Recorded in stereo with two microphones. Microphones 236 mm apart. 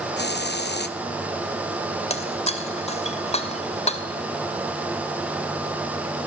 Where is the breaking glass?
25° left (ahead or behind), 2.5 m.